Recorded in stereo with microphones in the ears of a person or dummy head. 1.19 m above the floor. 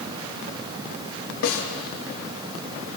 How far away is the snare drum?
About 1.4 m.